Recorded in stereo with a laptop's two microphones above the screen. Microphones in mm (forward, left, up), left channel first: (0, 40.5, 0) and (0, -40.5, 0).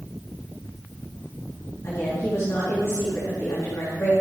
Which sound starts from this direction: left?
A woman speaking, at 1.8 s.